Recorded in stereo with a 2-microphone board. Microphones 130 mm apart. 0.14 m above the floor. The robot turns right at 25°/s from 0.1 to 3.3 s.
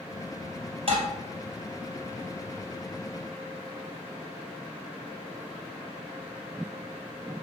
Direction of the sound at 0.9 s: 50° right (ahead or behind).